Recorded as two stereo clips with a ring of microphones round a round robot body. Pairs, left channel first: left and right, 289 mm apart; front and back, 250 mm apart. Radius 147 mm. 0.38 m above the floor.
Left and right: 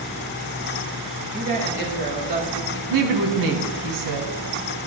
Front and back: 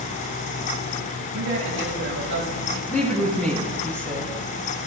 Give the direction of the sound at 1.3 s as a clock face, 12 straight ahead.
5 o'clock.